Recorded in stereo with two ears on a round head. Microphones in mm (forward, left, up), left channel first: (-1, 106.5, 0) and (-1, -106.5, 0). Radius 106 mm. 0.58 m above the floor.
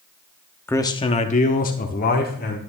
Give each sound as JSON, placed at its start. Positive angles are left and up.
{"t": 0.7, "sound": "a man speaking", "side_deg": 10, "distance_m": 0.7}